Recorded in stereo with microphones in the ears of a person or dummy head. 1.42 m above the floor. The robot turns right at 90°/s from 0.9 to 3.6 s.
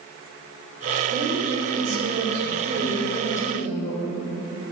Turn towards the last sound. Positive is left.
turn(degrees=35)